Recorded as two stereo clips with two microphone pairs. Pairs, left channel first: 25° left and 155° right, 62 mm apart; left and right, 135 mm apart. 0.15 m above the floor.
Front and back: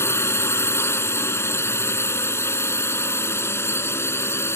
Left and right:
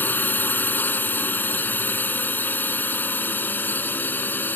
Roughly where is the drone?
Ahead.